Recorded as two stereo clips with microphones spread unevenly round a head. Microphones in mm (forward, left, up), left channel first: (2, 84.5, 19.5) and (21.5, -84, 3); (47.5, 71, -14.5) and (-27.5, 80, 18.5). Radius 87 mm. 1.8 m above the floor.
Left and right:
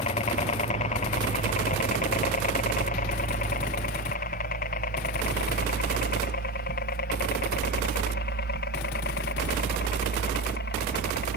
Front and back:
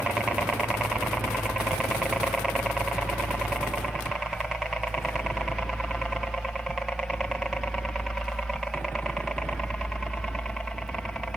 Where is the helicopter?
75° left.